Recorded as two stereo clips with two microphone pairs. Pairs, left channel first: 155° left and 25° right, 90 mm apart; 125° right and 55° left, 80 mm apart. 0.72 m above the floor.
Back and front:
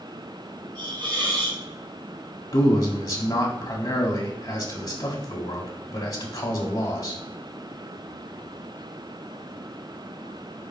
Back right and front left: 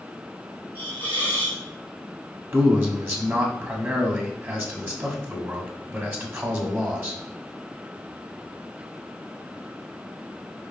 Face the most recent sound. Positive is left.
turn(degrees=115)